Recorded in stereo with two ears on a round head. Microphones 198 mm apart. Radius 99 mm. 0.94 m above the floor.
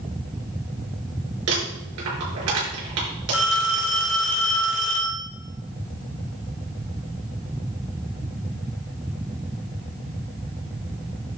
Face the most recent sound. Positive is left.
turn(degrees=45)  # may be behind; listen again after turning